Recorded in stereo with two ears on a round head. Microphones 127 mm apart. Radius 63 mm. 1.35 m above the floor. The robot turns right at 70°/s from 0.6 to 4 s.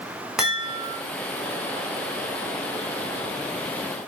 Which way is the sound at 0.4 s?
5° right (ahead or behind).